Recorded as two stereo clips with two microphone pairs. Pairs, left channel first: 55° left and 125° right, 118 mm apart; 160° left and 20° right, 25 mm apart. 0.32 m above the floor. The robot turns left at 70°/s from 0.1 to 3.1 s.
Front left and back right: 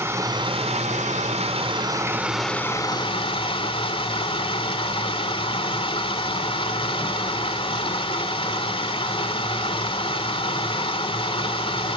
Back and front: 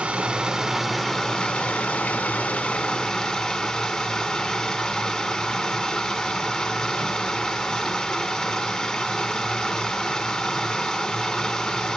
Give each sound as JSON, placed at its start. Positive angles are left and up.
{"t": 0.0, "sound": "running water", "azimuth_deg": -55, "distance_m": 0.9}